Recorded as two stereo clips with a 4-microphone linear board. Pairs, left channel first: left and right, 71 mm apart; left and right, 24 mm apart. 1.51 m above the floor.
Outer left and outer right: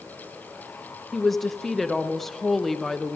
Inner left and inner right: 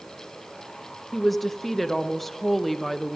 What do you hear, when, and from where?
1.1 s a woman speaking: centre (ahead or behind), 0.8 m